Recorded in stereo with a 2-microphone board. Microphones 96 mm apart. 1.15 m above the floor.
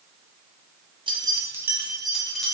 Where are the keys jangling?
60° right (ahead or behind), 0.6 m; by 2.5 s 5° left (ahead or behind), 1.4 m.